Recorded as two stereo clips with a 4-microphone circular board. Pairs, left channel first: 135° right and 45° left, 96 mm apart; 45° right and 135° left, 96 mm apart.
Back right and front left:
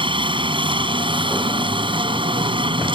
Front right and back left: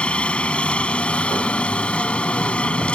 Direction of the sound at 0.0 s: 35° left.